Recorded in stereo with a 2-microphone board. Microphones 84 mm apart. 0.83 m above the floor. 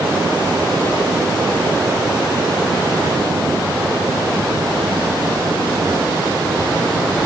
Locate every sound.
Only background noise.